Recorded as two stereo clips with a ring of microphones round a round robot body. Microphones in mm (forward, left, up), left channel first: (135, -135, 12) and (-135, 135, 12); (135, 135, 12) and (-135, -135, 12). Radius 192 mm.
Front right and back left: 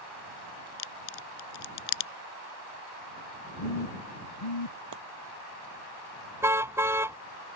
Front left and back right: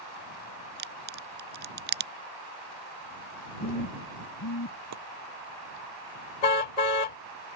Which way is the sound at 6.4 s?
50° left.